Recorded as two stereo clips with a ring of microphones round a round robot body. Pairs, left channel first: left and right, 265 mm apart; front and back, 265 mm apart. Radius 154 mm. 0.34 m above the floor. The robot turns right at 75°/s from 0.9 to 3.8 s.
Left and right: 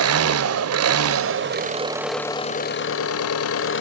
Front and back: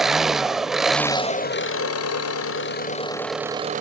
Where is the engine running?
90° right, 1.1 m; by 3.8 s 125° left, 1.1 m.